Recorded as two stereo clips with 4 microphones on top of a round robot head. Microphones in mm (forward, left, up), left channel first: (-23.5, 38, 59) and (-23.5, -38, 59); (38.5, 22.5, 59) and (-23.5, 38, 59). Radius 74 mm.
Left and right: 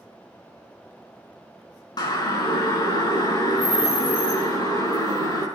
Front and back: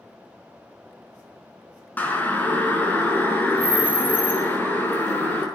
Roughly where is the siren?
Ahead left.